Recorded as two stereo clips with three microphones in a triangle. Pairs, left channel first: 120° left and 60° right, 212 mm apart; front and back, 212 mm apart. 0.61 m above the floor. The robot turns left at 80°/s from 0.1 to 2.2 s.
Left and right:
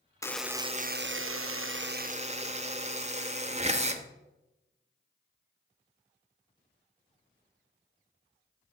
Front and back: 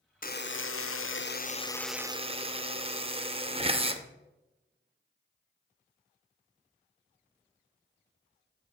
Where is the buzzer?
45° left, 0.5 m; by 4.0 s 115° right, 0.5 m.